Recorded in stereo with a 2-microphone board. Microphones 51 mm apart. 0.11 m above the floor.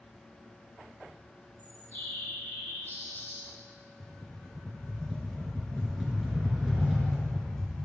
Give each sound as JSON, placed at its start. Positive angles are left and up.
{"t": 1.6, "sound": "a bird", "side_deg": 40, "distance_m": 3.0}
{"t": 4.0, "sound": "a rattle", "side_deg": 0, "distance_m": 1.9}